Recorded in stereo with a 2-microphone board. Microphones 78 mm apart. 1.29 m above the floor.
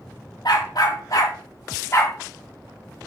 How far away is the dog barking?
About 1.9 m.